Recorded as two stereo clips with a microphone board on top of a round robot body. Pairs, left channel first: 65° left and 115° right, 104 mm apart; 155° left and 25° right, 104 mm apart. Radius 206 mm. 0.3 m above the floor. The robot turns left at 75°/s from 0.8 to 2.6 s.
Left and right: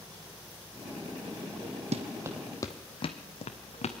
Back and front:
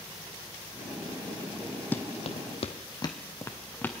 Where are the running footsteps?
130° right, 0.8 m; by 3.9 s 85° left, 1.6 m.